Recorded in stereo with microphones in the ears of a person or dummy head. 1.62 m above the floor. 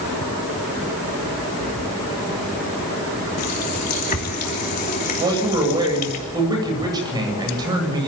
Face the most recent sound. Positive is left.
turn(degrees=-20)  # may be behind; listen again after turning